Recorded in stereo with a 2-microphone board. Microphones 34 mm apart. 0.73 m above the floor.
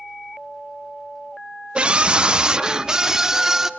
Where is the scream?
30° right (ahead or behind), 0.6 m; by 3.7 s 15° right (ahead or behind), 1.5 m.